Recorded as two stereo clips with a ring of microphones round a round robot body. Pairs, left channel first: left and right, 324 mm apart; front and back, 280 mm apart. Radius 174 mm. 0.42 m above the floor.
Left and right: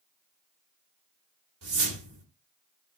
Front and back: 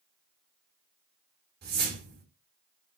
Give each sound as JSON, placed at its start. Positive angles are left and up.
{"t": 1.6, "sound": "a whoosh", "azimuth_deg": -130, "distance_m": 1.7}